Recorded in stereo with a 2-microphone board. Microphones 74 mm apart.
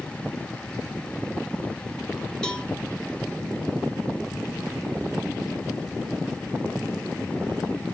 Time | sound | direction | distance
2.4 | a cowbell | 10° left (ahead or behind) | 2 m